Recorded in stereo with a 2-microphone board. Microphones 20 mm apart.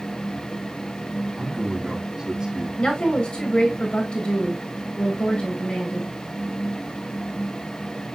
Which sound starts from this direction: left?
A woman speaking, at 2.8 s.